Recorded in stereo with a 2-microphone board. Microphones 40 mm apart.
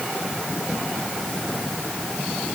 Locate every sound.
Only background noise.